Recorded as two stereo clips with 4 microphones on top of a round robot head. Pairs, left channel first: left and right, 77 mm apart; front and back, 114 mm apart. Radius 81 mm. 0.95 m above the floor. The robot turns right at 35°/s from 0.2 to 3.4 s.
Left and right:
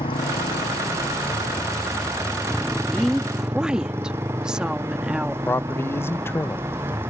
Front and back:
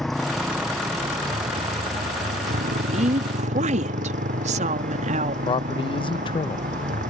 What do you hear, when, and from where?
0.0 s a motorcycle: 90° left; by 7.1 s 165° right
2.9 s a woman speaking: 170° left; by 5.3 s 175° right
5.5 s a man speaking: 35° left